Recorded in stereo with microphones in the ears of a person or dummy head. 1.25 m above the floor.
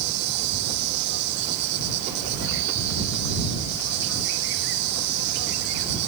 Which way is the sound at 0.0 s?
60° right (ahead or behind).